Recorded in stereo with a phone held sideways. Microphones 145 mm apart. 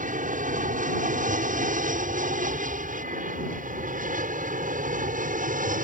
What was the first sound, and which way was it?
An aircraft, 65° right (ahead or behind).